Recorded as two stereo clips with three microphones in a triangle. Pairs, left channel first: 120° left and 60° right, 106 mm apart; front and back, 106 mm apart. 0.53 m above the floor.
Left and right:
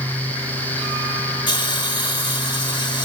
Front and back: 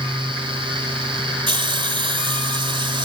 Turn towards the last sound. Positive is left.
turn(degrees=155)